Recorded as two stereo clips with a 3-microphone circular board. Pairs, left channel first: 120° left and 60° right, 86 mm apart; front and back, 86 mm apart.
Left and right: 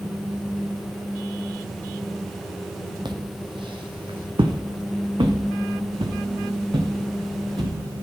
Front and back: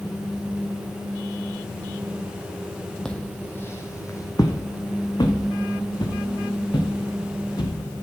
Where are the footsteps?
80° right, 1.0 m; by 7.7 s 30° right, 3.5 m.